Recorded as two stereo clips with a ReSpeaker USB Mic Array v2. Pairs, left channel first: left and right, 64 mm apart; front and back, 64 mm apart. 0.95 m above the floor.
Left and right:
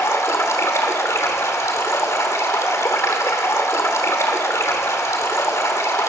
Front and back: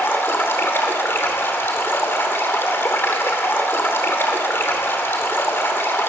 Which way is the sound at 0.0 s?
50° left.